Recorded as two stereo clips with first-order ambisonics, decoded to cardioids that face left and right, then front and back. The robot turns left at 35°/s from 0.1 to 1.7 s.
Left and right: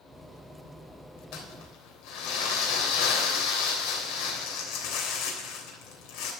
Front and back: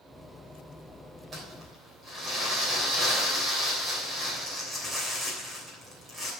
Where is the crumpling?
110° left, 3 m; by 6.3 s 95° left, 3 m.